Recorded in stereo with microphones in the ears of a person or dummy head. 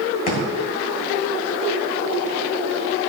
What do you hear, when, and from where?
0.3 s a thud: 50° left (ahead or behind), 2 m